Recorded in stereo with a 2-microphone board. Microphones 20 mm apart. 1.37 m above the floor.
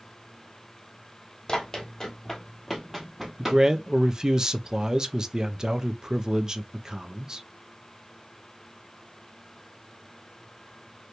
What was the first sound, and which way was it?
Running footsteps, 30° left (ahead or behind).